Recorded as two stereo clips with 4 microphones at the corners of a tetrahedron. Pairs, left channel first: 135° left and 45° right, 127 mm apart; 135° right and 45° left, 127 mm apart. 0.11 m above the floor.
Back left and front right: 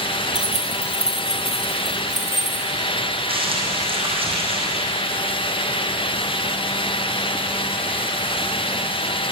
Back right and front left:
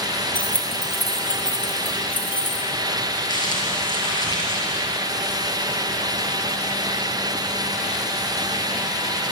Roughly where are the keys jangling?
Behind left.